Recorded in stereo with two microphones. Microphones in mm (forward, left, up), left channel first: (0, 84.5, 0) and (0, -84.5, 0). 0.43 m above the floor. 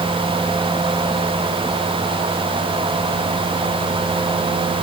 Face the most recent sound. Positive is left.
No sound to turn to.